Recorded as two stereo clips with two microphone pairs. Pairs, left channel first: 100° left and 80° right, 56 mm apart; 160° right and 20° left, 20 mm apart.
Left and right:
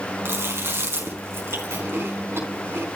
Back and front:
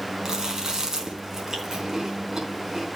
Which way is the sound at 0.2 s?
40° right.